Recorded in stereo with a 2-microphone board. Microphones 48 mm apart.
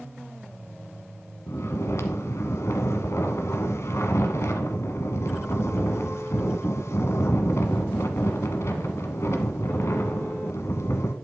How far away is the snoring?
About 1.3 m.